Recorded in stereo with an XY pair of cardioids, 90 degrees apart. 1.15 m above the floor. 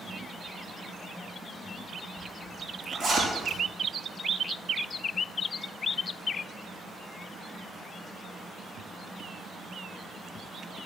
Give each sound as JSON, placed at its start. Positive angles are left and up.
{"t": 2.2, "sound": "a zipper", "azimuth_deg": -65, "distance_m": 5.0}